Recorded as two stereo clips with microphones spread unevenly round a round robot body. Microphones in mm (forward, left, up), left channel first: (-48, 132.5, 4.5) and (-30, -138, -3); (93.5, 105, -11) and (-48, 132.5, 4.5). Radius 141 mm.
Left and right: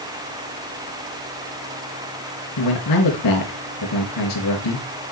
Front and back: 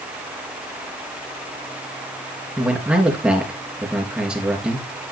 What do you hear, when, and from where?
2.6 s a man speaking: 85° left, 3.5 m